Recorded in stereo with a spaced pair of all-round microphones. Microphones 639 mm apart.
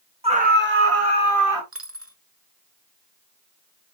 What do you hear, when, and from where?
0.2 s a scream: 10° right (ahead or behind), 2 m; by 1.6 s 30° right (ahead or behind), 3 m
1.7 s a dropped coin: 20° right (ahead or behind), 1.0 m